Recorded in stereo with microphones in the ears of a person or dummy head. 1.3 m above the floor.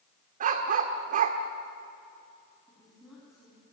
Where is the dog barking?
45° right (ahead or behind), 1.6 m.